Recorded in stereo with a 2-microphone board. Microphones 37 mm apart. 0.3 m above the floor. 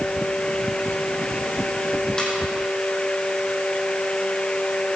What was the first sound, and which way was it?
A ringtone, 20° left (ahead or behind).